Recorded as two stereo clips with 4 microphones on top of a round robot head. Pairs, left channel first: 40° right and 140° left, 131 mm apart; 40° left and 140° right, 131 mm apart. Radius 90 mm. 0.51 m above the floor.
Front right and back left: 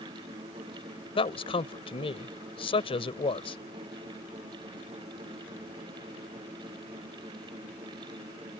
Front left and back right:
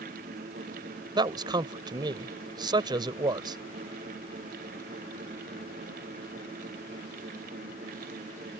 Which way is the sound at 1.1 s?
85° right.